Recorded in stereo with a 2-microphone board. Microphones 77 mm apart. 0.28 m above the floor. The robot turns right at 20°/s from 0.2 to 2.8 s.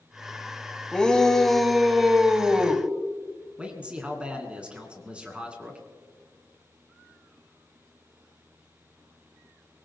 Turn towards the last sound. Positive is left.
turn(degrees=-15)  # may be behind; listen again after turning